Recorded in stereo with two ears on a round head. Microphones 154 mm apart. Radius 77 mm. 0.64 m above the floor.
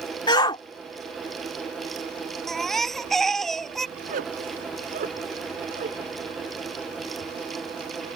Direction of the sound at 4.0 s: 50° right (ahead or behind).